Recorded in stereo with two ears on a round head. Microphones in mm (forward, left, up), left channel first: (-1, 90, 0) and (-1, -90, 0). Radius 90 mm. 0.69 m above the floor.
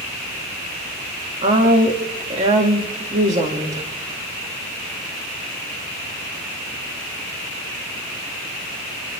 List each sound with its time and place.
1.4 s a woman speaking: 35° right (ahead or behind), 1.8 m